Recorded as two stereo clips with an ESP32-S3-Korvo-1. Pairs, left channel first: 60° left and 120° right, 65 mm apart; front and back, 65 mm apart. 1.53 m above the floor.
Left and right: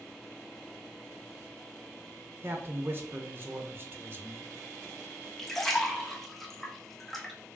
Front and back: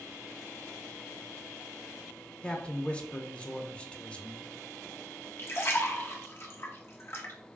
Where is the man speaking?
70° right, 0.6 m.